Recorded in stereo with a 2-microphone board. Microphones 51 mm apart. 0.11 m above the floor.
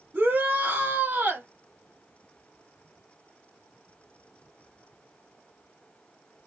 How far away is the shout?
About 1.2 m.